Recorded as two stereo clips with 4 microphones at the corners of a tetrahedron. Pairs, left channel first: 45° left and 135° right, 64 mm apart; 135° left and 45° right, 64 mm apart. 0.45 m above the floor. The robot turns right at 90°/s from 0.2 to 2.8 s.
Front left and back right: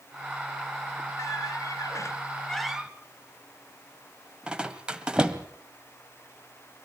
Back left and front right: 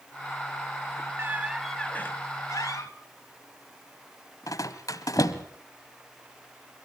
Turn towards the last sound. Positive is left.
turn(degrees=150)